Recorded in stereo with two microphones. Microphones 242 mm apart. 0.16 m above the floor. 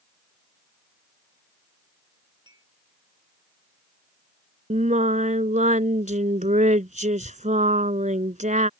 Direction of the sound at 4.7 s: 30° right (ahead or behind).